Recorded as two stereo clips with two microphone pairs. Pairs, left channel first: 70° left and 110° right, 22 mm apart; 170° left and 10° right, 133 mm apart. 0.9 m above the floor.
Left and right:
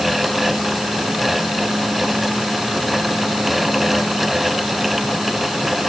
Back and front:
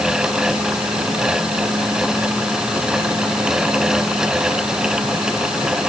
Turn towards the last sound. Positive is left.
No sound to turn to.